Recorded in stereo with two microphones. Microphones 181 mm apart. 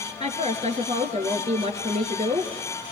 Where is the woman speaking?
40° right (ahead or behind), 2.5 m.